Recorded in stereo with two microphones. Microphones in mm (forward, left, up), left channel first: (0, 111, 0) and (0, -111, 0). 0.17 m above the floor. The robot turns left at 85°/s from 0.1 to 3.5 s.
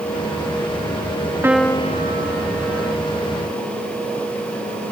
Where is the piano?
170° right; by 3.0 s 60° left.